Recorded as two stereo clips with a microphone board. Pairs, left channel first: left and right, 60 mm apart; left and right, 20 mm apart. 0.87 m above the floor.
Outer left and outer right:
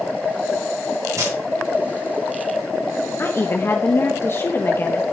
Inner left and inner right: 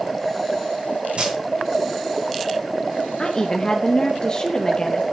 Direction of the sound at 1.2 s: 75° right (ahead or behind).